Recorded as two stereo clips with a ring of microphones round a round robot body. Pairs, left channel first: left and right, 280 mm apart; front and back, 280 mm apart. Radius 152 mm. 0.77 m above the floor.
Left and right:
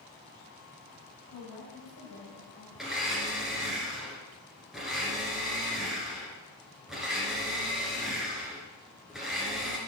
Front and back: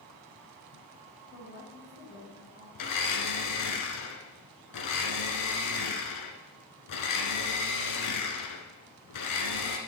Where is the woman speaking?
55° left, 5.5 m.